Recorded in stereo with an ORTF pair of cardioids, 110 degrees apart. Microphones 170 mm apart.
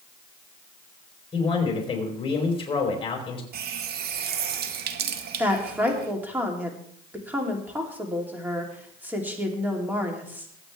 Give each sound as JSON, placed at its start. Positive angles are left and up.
{"t": 1.3, "sound": "a man speaking", "azimuth_deg": 30, "distance_m": 4.0}
{"t": 3.5, "sound": "a running tap", "azimuth_deg": -70, "distance_m": 1.3}
{"t": 5.4, "sound": "a woman speaking", "azimuth_deg": -10, "distance_m": 3.0}